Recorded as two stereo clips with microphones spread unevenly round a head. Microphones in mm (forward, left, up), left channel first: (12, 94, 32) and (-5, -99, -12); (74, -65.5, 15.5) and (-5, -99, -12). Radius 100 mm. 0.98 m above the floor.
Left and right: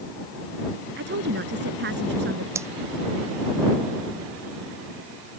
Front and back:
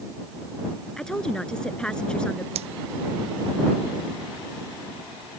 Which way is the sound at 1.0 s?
60° right.